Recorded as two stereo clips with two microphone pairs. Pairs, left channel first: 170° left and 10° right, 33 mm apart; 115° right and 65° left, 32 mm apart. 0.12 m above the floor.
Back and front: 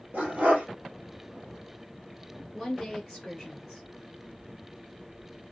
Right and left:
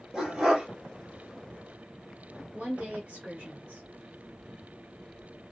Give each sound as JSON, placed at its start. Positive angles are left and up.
{"t": 0.1, "sound": "a dog barking", "azimuth_deg": -5, "distance_m": 1.3}
{"t": 2.5, "sound": "a woman speaking", "azimuth_deg": 70, "distance_m": 1.2}